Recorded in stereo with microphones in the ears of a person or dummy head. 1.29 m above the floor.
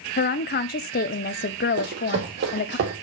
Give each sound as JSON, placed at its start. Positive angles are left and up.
{"t": 0.2, "sound": "a woman speaking", "side_deg": 35, "distance_m": 0.5}
{"t": 1.8, "sound": "running footsteps", "side_deg": -55, "distance_m": 2.5}